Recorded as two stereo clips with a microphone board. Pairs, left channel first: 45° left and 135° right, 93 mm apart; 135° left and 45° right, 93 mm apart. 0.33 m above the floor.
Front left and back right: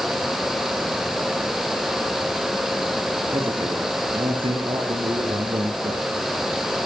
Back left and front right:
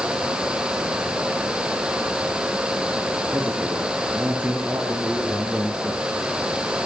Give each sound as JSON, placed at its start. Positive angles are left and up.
{"t": 3.3, "sound": "a man speaking", "azimuth_deg": -115, "distance_m": 8.0}